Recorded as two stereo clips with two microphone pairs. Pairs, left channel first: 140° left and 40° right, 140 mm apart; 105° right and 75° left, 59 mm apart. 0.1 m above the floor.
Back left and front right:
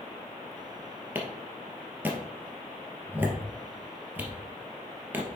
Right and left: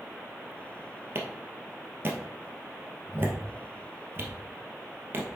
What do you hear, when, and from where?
1.1 s a clap: 30° left, 2.0 m